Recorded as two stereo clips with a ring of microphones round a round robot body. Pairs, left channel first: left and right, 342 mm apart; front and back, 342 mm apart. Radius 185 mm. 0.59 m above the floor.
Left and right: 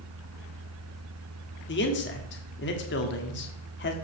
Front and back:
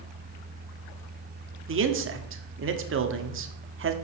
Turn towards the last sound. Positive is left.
turn(degrees=140)